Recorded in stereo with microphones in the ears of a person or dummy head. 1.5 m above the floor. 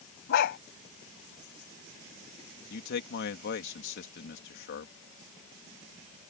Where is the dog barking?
60° left (ahead or behind).